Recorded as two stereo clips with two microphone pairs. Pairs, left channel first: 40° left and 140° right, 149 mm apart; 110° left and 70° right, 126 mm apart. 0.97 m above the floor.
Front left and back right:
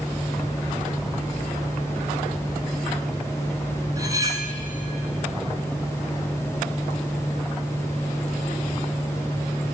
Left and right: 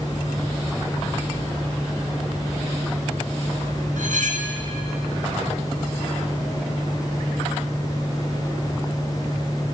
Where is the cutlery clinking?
75° right, 3.5 m.